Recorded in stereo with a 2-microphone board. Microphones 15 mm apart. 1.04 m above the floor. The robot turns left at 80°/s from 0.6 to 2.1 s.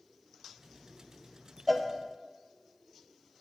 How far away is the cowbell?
About 0.7 m.